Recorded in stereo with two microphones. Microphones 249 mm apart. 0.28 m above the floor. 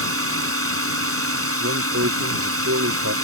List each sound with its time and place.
0.0 s a drone: 60° right (ahead or behind)
1.6 s a man speaking: 65° right (ahead or behind)